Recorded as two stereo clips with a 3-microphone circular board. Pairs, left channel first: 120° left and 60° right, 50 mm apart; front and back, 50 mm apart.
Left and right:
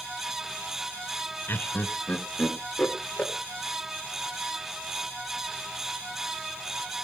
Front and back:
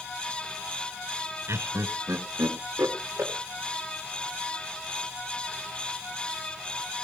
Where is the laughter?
160° left, 1.1 m; by 3.3 s 175° right, 3.5 m.